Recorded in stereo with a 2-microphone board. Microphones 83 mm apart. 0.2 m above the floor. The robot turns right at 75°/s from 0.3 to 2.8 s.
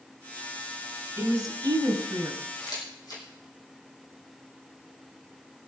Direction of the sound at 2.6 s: 60° left (ahead or behind).